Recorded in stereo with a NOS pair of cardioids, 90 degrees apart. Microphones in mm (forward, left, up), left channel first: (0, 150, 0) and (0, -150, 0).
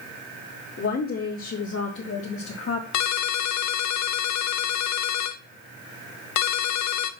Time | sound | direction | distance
0.8 | a woman speaking | 45° left | 3 m
2.9 | a ringtone | 70° left | 0.9 m